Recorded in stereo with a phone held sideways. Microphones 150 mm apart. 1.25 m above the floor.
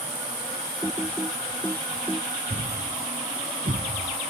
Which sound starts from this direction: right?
A thud, at 2.5 s.